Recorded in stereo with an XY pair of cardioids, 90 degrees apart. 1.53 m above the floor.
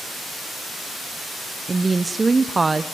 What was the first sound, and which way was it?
A woman speaking, 25° right.